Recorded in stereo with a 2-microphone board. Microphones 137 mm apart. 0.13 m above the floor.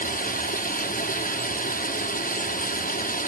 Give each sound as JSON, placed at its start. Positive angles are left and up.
{"t": 0.0, "sound": "running water", "side_deg": 80, "distance_m": 1.1}